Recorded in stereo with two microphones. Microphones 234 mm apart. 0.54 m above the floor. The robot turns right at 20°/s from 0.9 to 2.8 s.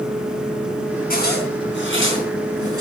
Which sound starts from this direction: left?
A zipper, at 1.1 s.